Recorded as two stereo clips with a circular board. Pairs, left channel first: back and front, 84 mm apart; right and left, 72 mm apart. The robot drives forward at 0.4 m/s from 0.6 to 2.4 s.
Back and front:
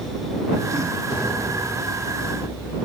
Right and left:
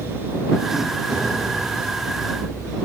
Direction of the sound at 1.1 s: Straight behind.